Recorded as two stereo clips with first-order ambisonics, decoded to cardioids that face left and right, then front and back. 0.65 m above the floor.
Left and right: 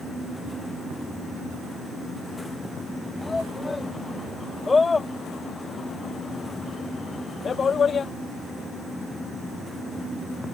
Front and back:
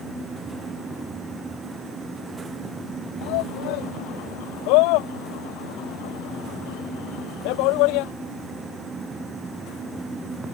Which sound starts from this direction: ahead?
A shout, at 3.2 s.